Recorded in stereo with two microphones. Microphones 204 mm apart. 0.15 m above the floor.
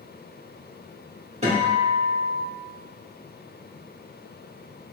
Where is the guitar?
35° right (ahead or behind), 1.6 m.